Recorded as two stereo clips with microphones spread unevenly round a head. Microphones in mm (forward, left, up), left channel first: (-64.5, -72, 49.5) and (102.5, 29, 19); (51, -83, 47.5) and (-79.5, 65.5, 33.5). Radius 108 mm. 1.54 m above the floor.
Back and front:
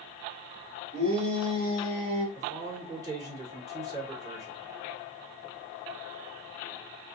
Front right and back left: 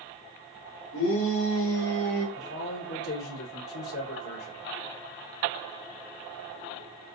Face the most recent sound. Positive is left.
turn(degrees=-40)